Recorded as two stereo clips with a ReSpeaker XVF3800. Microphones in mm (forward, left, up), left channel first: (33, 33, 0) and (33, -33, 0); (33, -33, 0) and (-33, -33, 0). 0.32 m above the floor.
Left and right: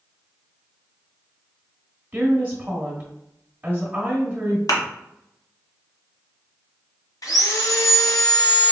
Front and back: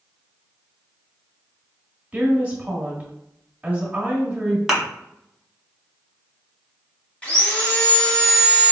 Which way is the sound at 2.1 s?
135° right.